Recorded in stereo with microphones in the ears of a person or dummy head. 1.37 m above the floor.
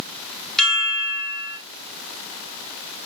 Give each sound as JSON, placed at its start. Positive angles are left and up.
{"t": 0.6, "sound": "a chime", "side_deg": 0, "distance_m": 3.0}